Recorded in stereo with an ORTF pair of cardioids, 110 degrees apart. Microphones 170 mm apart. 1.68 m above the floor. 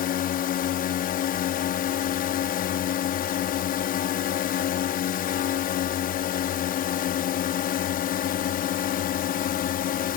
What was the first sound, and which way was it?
A drone, 60° left.